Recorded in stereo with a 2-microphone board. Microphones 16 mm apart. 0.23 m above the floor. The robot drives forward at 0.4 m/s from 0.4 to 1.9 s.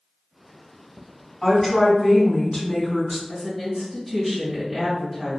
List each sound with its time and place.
1.4 s a woman speaking: 45° left (ahead or behind), 1.4 m
3.3 s a woman speaking: 10° left (ahead or behind), 1.5 m